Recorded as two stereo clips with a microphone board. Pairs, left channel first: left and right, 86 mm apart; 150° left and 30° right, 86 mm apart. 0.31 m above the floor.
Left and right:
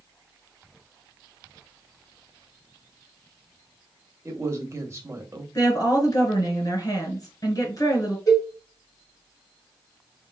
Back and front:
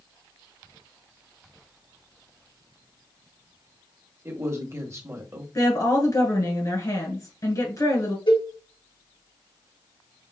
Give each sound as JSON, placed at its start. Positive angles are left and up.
{"t": 4.2, "sound": "a man speaking", "azimuth_deg": -60, "distance_m": 1.0}
{"t": 5.5, "sound": "a woman speaking", "azimuth_deg": 120, "distance_m": 2.0}
{"t": 8.3, "sound": "a cowbell", "azimuth_deg": 140, "distance_m": 3.5}